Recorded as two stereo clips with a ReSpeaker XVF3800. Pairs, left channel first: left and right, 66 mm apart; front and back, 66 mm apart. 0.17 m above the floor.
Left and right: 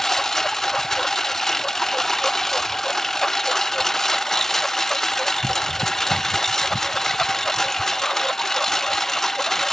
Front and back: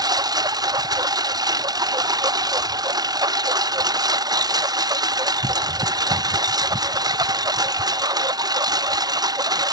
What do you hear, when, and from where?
0.0 s a lawn mower: 175° left